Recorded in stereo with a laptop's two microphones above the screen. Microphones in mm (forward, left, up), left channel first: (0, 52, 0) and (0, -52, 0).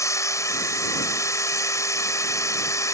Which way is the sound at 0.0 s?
30° left (ahead or behind).